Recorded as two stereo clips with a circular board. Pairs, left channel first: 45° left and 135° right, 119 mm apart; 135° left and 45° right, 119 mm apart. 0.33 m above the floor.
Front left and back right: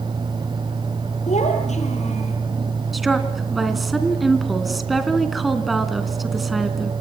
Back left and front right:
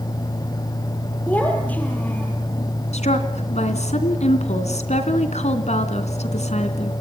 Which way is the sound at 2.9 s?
135° left.